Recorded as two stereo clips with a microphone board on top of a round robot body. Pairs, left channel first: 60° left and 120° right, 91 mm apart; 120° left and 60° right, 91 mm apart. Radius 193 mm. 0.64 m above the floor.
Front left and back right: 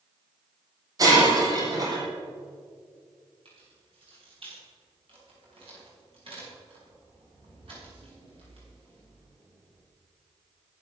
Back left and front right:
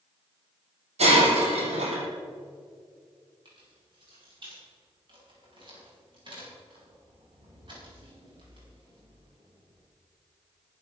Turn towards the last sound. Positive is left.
turn(degrees=-95)